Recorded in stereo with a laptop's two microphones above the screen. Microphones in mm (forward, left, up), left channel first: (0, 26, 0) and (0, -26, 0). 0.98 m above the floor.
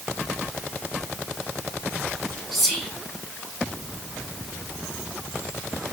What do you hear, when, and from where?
2.5 s whispering: 5° right (ahead or behind), 1.8 m